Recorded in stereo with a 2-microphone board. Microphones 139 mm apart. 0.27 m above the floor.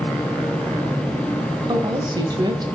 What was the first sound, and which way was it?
A woman speaking, 30° right (ahead or behind).